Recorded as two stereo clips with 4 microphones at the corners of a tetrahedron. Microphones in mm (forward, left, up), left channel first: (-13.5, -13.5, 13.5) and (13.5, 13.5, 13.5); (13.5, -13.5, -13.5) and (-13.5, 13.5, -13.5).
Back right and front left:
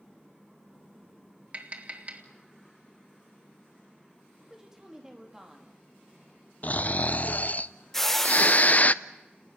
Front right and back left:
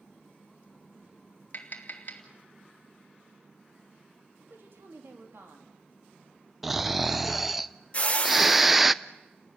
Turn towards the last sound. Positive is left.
turn(degrees=-60)